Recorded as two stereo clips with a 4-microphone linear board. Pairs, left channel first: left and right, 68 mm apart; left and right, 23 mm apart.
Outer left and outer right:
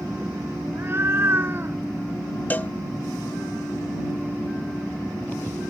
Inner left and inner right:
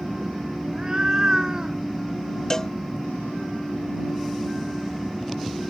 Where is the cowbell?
25° left (ahead or behind).